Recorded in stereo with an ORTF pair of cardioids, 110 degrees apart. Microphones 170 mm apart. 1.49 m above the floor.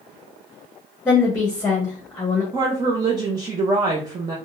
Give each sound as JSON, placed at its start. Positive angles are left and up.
{"t": 1.1, "sound": "a woman speaking", "azimuth_deg": 10, "distance_m": 0.9}
{"t": 2.5, "sound": "a woman speaking", "azimuth_deg": -25, "distance_m": 0.7}